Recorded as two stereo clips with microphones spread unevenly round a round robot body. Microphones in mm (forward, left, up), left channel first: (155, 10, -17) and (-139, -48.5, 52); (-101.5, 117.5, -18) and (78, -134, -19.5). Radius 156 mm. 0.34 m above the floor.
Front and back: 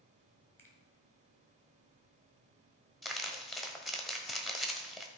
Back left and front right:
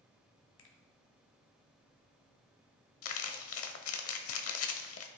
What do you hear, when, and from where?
0.6 s a finger snap: 90° left, 1.7 m
3.0 s crumpling: 90° left, 1.0 m